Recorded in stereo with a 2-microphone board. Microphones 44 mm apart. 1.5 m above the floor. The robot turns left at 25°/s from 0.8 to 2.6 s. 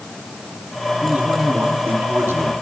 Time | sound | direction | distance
1.0 | a man speaking | 30° right | 4 m